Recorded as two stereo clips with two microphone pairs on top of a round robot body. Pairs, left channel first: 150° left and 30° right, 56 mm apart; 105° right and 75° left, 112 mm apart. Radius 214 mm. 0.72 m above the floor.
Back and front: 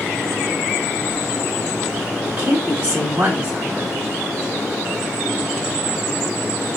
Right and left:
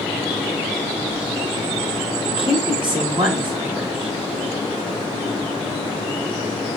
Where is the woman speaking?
30° left, 3.5 m.